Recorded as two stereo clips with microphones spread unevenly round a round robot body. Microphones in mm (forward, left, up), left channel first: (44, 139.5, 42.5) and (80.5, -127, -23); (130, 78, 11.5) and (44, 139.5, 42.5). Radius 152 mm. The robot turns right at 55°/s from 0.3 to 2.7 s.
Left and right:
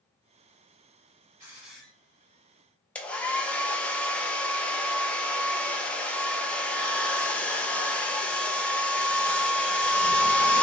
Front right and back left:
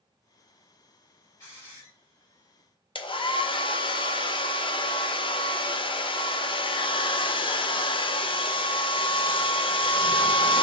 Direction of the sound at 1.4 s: 30° right.